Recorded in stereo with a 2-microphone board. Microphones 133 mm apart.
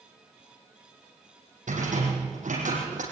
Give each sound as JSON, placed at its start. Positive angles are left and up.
{"t": 1.7, "sound": "a rattle", "side_deg": -90, "distance_m": 7.0}